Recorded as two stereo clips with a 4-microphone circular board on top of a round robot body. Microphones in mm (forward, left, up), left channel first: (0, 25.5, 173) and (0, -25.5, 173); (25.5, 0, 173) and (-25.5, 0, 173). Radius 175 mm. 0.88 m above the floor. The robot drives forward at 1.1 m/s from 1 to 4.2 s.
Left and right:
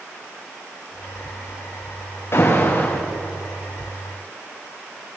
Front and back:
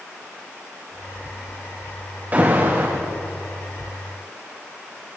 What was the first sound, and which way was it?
An alarm, 125° left.